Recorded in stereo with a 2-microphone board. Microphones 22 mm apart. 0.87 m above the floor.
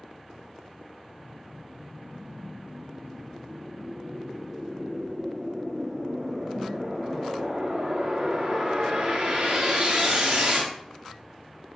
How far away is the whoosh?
About 1.7 m.